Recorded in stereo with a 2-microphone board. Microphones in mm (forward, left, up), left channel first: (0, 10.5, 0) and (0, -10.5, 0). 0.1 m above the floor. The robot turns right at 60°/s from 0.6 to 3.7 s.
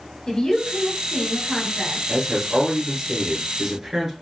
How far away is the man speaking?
About 1.3 m.